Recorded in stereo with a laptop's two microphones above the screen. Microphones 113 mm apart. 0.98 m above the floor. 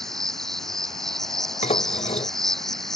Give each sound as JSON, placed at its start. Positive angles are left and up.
{"t": 0.0, "sound": "an insect", "side_deg": 5}
{"t": 1.6, "sound": "dishes clattering", "side_deg": 80}